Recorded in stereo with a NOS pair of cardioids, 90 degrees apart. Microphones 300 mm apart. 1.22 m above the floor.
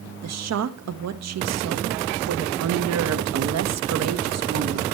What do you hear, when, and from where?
0.2 s a woman speaking: 60° right, 1.3 m